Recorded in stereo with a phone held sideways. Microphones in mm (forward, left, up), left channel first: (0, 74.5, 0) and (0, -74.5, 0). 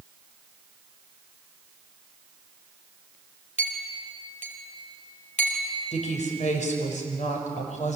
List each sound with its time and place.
3.6 s a clink: 50° left (ahead or behind), 4 m
5.9 s a woman speaking: 55° left (ahead or behind), 5.5 m